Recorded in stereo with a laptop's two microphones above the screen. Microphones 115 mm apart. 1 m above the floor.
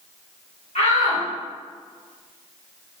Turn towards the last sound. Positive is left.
turn(degrees=70)  # may be behind; listen again after turning